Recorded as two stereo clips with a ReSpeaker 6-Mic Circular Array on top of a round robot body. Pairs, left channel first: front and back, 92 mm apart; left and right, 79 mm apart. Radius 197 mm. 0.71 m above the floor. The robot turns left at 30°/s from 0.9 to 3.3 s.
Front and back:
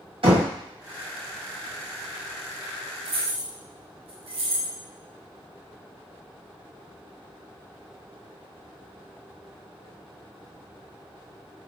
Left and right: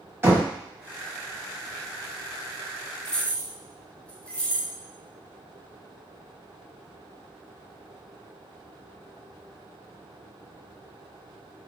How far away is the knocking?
About 1.7 m.